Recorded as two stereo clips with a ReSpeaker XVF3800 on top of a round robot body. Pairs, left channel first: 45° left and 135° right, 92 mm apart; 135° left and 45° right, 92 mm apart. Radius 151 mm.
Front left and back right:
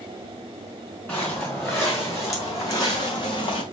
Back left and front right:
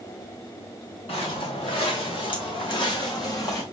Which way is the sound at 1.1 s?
115° left.